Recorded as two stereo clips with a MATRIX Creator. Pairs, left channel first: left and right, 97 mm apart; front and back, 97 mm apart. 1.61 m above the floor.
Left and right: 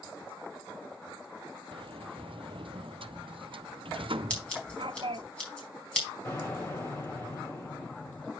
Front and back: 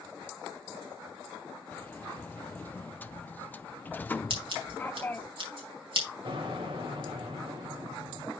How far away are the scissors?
About 4 m.